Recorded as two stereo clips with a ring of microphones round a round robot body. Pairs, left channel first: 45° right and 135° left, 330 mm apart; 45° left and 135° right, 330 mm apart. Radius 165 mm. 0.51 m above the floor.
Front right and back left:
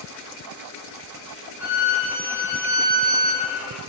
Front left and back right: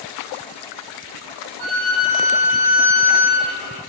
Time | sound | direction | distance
1.6 | a violin | 140° right | 3.5 m